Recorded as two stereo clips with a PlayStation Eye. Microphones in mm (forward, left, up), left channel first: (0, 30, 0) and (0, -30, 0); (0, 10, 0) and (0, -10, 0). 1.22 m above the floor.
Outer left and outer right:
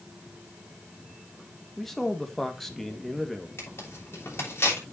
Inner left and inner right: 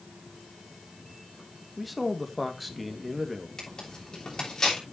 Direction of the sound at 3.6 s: 40° left (ahead or behind).